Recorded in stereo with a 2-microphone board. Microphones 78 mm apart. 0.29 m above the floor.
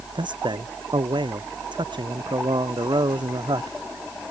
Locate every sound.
0.1 s a man speaking: 85° right; by 3.8 s 75° right (ahead or behind)